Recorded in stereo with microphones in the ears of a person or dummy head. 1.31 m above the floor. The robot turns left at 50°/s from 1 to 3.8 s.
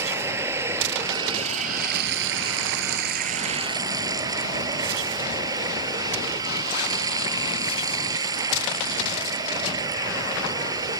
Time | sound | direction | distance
0.0 | running water | 15° right | ?